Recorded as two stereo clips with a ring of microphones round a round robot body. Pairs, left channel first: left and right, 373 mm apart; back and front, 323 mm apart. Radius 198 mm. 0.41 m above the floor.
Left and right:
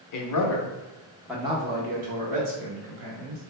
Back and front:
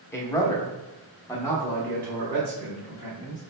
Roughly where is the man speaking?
Left.